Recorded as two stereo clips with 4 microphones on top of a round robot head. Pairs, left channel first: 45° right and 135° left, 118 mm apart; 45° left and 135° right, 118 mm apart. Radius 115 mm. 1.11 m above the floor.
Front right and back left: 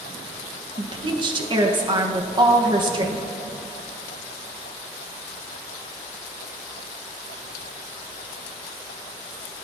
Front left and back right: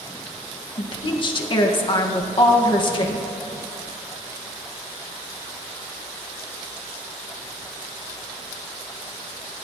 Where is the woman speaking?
90° left, 1.5 m.